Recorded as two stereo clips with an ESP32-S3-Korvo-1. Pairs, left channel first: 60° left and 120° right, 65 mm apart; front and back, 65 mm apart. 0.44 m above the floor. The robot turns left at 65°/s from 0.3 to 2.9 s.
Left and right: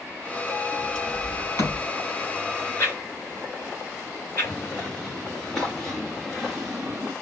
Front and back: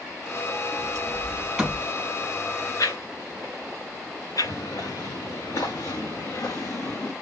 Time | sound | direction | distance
0.7 | a sliding door | 150° left | 3 m
2.8 | a whoosh | 20° left | 3 m
4.4 | footsteps | 15° right | 3 m